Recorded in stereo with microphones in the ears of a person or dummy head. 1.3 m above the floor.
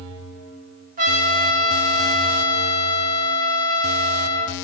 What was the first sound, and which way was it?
A trumpet, 40° right (ahead or behind).